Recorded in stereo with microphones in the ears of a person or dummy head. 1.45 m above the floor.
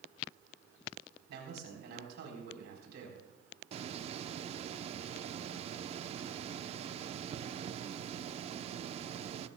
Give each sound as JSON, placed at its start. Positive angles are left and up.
{"t": 1.3, "sound": "a man speaking", "side_deg": -55, "distance_m": 4.0}
{"t": 3.7, "sound": "a hiss", "side_deg": -30, "distance_m": 0.7}